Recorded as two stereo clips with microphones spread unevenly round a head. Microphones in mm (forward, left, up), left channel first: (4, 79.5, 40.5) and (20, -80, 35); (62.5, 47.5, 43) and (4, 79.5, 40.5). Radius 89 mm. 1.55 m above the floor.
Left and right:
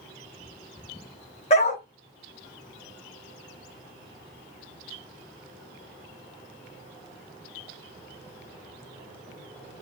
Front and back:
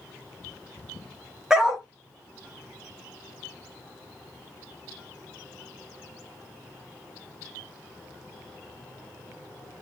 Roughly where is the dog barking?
Left.